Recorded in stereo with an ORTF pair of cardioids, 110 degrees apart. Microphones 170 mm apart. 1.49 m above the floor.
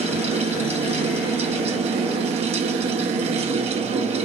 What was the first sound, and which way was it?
A fan, 35° right.